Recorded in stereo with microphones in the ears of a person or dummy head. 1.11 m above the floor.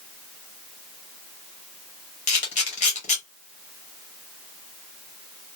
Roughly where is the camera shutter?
Left.